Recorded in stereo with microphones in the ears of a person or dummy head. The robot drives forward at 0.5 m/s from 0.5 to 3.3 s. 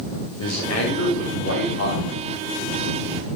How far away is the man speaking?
About 5 m.